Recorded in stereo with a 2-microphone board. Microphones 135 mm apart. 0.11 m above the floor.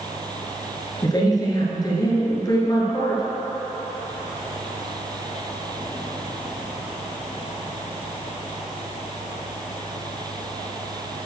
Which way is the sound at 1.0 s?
30° left (ahead or behind).